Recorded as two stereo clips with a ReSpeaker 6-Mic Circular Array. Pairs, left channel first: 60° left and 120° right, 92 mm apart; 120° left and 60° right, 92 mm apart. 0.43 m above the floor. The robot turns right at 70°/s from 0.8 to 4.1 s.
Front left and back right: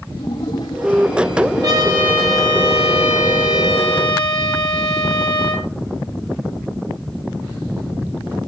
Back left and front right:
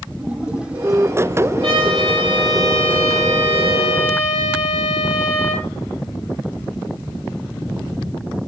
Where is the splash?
15° left, 4.5 m; by 2.0 s 100° left, 4.5 m.